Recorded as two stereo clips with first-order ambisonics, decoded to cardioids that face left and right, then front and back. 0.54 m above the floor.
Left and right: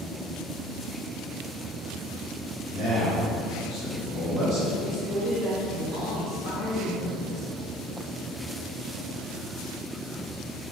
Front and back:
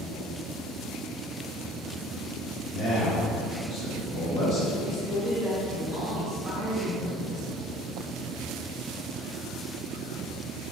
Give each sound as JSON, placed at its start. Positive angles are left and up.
{"t": 2.7, "sound": "a man speaking", "azimuth_deg": -110, "distance_m": 1.1}
{"t": 4.8, "sound": "a man speaking", "azimuth_deg": -115, "distance_m": 1.4}